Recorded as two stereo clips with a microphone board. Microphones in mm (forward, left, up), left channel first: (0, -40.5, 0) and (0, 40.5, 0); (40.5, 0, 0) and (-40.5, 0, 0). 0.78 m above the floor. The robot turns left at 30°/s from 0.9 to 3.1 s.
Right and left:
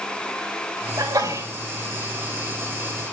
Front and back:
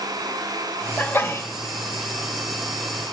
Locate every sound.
1.0 s a sneeze: 65° left, 3 m; by 1.5 s 50° left, 3 m